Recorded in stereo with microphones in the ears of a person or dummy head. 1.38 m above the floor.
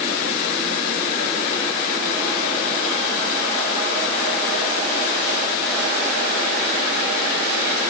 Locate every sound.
Only background noise.